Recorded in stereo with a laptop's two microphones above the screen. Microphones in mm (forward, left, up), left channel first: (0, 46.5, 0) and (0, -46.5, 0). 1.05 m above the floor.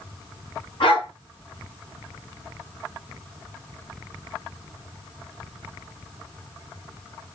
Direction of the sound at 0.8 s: 65° left (ahead or behind).